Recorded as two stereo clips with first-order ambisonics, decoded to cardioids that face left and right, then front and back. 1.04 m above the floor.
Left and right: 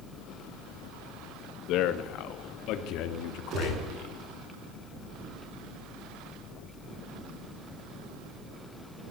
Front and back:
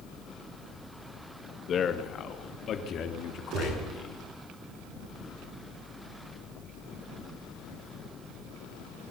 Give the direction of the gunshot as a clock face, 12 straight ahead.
5 o'clock.